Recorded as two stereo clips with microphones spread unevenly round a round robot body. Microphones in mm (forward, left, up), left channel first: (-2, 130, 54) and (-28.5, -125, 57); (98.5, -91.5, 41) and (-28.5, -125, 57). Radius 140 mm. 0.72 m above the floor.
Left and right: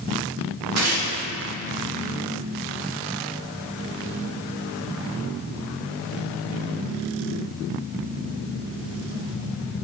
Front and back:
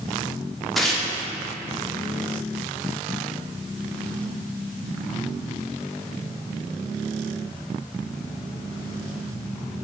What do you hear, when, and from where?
0.8 s tearing paper: 75° right, 1.3 m